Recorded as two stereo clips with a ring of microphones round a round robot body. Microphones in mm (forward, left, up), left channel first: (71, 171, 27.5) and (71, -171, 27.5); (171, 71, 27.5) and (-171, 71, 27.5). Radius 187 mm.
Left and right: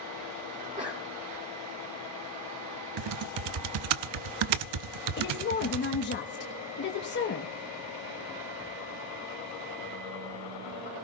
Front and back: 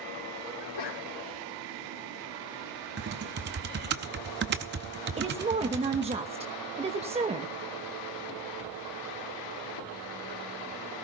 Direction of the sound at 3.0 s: 115° right.